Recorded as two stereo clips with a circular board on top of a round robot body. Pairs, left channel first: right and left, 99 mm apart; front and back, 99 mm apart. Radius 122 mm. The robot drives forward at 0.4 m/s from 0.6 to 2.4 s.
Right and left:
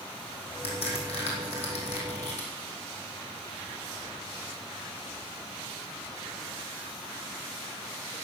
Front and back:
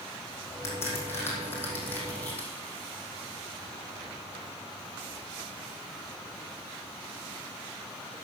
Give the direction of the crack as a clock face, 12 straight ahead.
2 o'clock.